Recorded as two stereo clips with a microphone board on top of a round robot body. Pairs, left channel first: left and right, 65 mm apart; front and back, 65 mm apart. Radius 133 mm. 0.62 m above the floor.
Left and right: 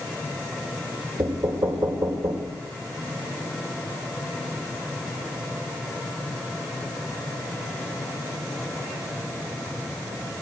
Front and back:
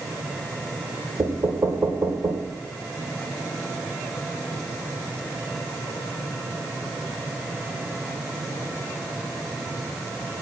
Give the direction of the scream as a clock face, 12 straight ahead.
No scream in this recording.